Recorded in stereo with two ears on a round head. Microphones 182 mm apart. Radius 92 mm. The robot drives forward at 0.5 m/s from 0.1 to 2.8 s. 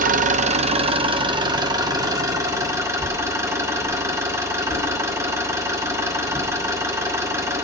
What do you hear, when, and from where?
0.0 s an engine running: 45° right (ahead or behind), 0.8 m; by 7.7 s 15° right (ahead or behind), 2.0 m
3.0 s a whoosh: 5° left (ahead or behind), 9.5 m